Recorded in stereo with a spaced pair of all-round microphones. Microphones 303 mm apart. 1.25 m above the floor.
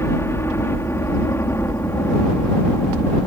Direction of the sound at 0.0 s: 10° left (ahead or behind).